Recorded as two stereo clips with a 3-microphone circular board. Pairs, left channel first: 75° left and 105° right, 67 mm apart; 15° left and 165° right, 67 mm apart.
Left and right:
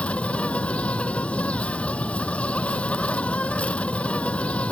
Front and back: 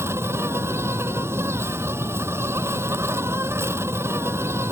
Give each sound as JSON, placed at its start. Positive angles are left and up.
{"t": 0.0, "sound": "an insect", "azimuth_deg": 145}